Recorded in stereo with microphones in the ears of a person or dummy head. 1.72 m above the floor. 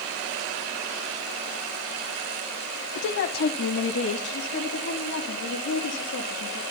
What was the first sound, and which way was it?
A woman speaking, 60° left (ahead or behind).